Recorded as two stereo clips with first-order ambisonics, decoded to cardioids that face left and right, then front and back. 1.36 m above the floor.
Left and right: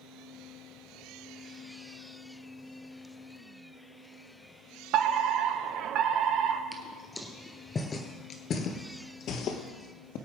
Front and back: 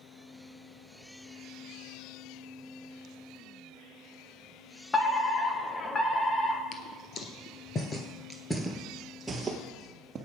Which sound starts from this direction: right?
A fire alarm, at 4.9 s.